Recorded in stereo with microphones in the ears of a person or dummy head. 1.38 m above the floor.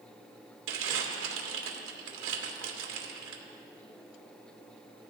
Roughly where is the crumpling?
Right.